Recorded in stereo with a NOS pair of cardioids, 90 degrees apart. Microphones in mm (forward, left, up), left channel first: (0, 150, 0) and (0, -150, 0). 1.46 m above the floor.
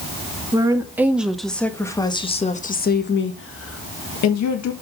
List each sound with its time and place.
0.5 s a woman speaking: 10° right, 2 m; by 4.7 s 70° left, 1.9 m